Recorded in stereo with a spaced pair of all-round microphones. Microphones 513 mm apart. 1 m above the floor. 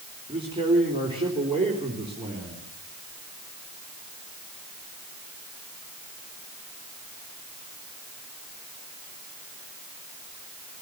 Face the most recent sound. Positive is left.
turn(degrees=-10)  # may be behind; listen again after turning